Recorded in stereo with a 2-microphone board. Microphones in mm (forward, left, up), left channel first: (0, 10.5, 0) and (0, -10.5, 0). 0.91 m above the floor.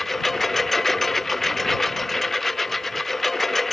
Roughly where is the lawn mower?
Centre.